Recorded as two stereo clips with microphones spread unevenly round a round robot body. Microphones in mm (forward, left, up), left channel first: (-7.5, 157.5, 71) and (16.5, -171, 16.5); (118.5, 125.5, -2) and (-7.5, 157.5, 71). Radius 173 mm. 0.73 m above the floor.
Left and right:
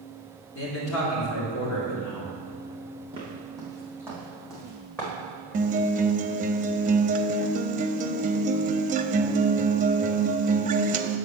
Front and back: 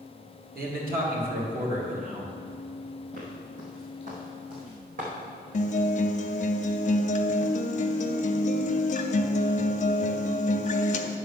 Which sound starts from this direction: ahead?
A guitar, at 5.5 s.